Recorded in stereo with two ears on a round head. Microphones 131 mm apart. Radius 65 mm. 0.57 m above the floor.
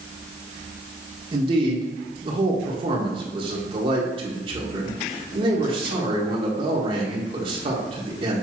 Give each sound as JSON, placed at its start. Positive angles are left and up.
{"t": 1.3, "sound": "a man speaking", "side_deg": -40, "distance_m": 1.7}